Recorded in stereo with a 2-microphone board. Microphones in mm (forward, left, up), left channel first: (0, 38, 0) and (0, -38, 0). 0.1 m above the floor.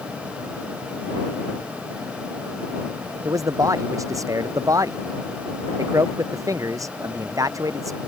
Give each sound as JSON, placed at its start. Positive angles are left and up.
{"t": 3.2, "sound": "a man speaking", "side_deg": -45}